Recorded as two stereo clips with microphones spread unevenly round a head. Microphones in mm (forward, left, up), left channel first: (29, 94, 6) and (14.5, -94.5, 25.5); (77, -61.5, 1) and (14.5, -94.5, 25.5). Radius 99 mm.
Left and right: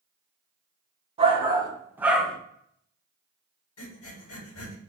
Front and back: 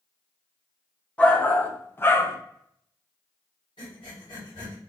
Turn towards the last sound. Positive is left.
turn(degrees=85)